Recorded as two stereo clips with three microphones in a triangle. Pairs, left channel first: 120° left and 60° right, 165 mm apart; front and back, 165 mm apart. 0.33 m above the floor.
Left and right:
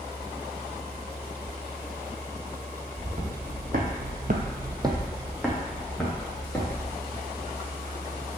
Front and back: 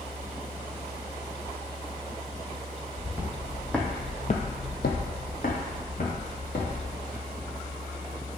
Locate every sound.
3.0 s footsteps: 105° right, 1.5 m; by 6.8 s 45° left, 2.5 m